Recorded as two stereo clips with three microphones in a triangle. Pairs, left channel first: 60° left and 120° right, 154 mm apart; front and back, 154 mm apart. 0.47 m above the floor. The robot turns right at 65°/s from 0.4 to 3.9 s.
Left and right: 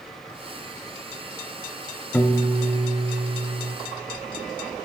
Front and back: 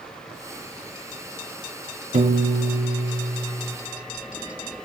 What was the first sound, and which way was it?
A piano, 135° left.